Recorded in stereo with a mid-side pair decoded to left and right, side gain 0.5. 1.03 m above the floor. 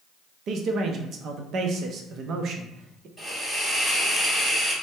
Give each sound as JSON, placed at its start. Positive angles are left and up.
{"t": 0.5, "sound": "a man speaking", "azimuth_deg": -60, "distance_m": 0.6}
{"t": 3.2, "sound": "a hiss", "azimuth_deg": -15, "distance_m": 1.9}